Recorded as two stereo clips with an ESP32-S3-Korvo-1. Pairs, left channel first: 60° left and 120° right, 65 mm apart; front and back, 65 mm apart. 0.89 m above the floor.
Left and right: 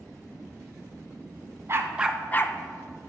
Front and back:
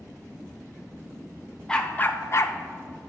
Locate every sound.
1.7 s a dog barking: 75° right, 0.8 m; by 3.1 s 55° left, 1.1 m